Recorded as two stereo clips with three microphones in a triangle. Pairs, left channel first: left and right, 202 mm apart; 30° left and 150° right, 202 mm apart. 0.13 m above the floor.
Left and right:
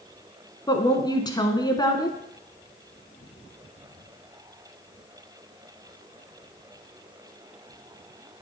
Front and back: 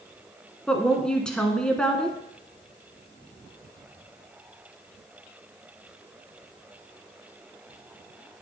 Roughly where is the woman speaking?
Left.